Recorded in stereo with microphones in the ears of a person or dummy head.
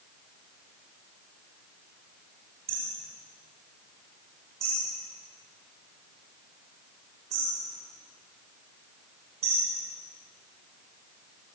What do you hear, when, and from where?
2.7 s hammering: 35° right (ahead or behind), 6 m